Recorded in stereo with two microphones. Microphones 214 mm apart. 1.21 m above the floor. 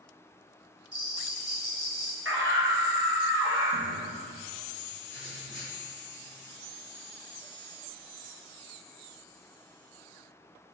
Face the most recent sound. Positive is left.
turn(degrees=-65)  # may be behind; listen again after turning